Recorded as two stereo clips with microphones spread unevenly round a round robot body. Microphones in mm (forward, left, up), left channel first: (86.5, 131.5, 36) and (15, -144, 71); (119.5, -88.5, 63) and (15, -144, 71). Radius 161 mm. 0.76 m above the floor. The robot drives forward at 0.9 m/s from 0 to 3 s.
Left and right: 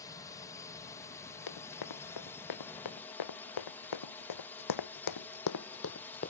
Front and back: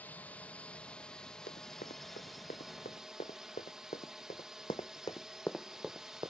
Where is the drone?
60° left; by 6.3 s 125° left.